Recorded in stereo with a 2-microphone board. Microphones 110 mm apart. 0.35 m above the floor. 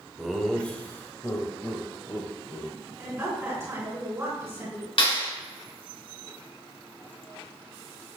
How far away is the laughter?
About 1.0 m.